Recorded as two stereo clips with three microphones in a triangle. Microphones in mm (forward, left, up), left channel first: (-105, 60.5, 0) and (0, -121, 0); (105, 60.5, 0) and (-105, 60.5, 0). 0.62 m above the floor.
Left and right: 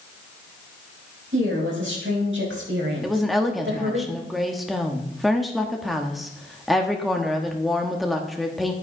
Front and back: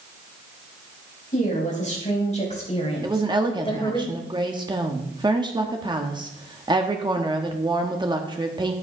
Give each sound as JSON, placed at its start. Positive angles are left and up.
{"t": 1.3, "sound": "a woman speaking", "azimuth_deg": -50, "distance_m": 4.5}
{"t": 3.0, "sound": "a woman speaking", "azimuth_deg": -150, "distance_m": 1.1}